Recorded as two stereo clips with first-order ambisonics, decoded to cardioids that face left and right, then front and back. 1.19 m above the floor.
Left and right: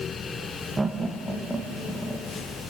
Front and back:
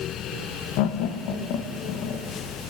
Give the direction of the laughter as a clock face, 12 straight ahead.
12 o'clock.